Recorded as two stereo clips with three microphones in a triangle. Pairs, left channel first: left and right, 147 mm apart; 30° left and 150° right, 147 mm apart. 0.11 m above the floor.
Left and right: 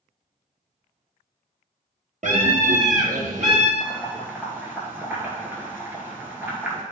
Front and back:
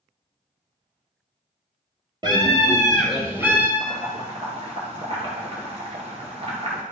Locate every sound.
2.2 s a scream: 95° right, 2.5 m; by 3.7 s 75° right, 2.5 m
3.8 s boiling: 160° right, 2 m